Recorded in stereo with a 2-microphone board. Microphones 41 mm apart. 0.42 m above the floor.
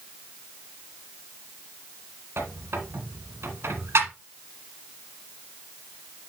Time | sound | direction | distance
2.4 | a squeak | 80° right | 1.4 m